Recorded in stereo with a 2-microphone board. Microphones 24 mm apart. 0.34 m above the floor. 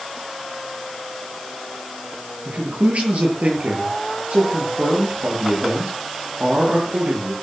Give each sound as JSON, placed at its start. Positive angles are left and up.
{"t": 2.5, "sound": "a man speaking", "side_deg": -60, "distance_m": 8.5}